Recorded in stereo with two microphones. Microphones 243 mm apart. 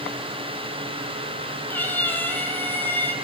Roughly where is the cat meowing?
Centre.